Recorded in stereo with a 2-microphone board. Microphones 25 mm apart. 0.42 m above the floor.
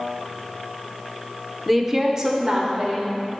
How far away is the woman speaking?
About 0.8 m.